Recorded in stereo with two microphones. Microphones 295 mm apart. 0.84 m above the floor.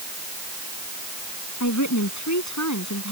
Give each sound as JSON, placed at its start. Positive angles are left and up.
{"t": 1.6, "sound": "a woman speaking", "side_deg": 75}